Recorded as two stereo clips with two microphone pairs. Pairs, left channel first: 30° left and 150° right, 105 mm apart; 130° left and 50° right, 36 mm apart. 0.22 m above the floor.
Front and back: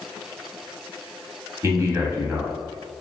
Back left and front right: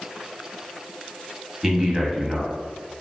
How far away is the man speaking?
About 1.1 m.